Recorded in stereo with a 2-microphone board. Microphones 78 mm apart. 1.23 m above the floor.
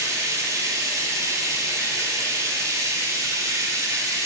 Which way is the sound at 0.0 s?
40° right (ahead or behind).